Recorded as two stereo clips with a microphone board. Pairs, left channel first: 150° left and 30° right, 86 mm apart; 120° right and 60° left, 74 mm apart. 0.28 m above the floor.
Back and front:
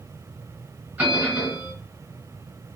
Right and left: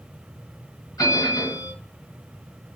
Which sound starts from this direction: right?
A bell, at 1.0 s.